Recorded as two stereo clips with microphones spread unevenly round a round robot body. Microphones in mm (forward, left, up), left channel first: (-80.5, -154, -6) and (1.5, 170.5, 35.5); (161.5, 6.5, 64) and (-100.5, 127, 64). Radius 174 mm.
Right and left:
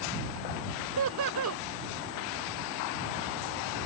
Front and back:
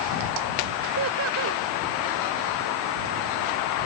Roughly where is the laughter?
Behind left.